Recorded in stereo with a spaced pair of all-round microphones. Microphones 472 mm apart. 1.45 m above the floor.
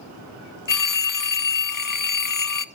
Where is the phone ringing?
45° left (ahead or behind), 0.6 m.